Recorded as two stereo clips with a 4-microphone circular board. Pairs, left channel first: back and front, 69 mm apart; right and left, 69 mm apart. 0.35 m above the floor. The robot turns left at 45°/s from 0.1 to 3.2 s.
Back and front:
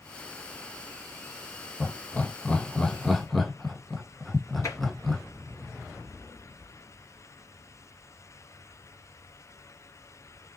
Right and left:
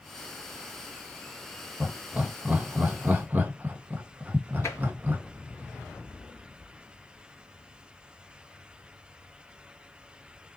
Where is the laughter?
155° left, 1.2 m; by 5.2 s 90° left, 1.2 m.